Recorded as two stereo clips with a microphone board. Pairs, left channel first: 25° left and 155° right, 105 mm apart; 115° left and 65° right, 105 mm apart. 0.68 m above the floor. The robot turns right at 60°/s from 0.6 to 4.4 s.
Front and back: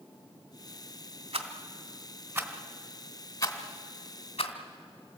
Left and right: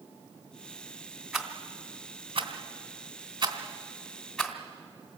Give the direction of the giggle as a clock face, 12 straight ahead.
I don't hear a giggle.